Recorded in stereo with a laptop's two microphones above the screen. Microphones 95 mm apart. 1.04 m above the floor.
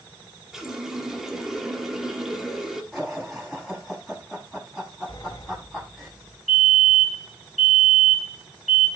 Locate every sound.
0.5 s a running tap: 5° right (ahead or behind), 1.3 m
2.9 s laughter: centre (ahead or behind), 7.5 m
5.1 s a sliding door: 50° left (ahead or behind), 2 m
6.5 s a fire alarm: centre (ahead or behind), 3.5 m